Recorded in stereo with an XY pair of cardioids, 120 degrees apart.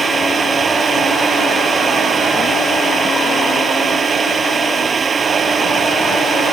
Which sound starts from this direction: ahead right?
A fan, at 0.0 s.